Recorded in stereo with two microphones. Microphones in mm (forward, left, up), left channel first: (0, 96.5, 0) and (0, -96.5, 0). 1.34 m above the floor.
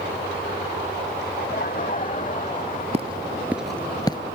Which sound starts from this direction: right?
Footsteps, at 2.9 s.